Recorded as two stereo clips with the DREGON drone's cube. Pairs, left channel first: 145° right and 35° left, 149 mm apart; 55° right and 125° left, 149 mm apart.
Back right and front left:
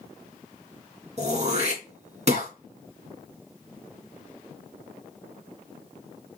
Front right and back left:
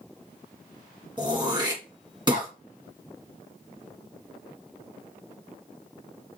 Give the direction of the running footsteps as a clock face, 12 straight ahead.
No running footsteps in this recording.